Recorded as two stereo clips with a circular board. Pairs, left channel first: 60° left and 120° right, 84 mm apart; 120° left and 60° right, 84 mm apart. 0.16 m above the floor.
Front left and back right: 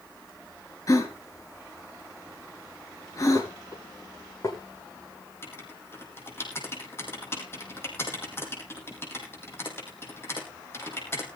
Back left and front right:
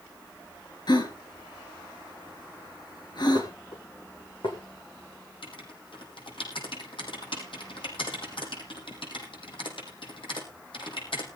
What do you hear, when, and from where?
0.9 s a gasp: 100° left, 3 m
3.4 s dishes clattering: 110° left, 6.5 m
5.4 s writing: 120° left, 4.5 m